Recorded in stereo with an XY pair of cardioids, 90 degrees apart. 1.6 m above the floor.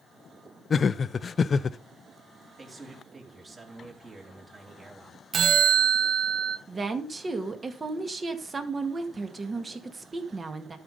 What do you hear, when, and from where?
0.7 s laughter: 40° left, 0.7 m
2.6 s a man speaking: 35° right, 4 m
5.3 s a bell: 55° right, 0.8 m
6.7 s a woman speaking: 35° right, 2 m